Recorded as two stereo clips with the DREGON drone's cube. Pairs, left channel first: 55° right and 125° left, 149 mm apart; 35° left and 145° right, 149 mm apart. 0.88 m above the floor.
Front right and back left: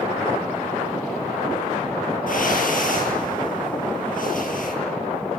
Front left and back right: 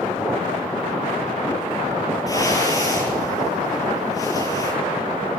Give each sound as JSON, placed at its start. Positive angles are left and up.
{"t": 2.3, "sound": "a whoosh", "azimuth_deg": -30, "distance_m": 8.5}